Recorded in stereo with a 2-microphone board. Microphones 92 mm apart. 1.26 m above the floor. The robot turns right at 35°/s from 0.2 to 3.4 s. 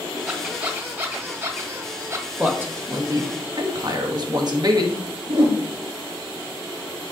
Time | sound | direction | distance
0.3 | a squeak | 10° right (ahead or behind) | 1.2 m
2.4 | a man speaking | 170° right | 1.3 m
5.3 | a whoosh | 80° right | 3.5 m